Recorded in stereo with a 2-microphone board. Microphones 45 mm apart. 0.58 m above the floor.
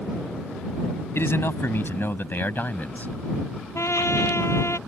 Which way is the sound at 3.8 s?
80° left.